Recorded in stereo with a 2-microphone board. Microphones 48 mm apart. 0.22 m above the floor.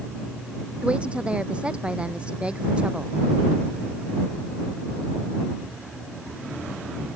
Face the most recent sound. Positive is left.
turn(degrees=-25)  # may be behind; listen again after turning